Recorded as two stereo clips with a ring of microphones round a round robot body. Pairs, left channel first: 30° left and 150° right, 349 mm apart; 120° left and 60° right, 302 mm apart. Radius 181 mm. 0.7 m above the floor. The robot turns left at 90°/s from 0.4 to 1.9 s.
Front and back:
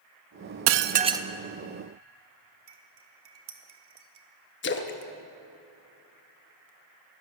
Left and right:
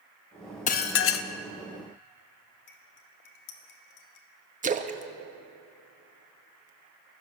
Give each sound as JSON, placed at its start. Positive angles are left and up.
{"t": 0.7, "sound": "dishes clattering", "azimuth_deg": 175, "distance_m": 0.5}
{"t": 2.7, "sound": "cutlery clinking", "azimuth_deg": 155, "distance_m": 1.2}
{"t": 4.6, "sound": "a splash", "azimuth_deg": -10, "distance_m": 0.9}